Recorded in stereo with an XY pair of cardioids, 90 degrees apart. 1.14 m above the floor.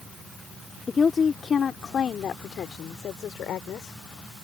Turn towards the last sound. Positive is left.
turn(degrees=80)